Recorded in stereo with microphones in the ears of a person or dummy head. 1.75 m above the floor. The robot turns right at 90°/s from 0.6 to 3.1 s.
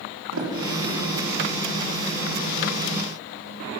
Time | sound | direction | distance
0.3 | a sliding door | 80° right | 5 m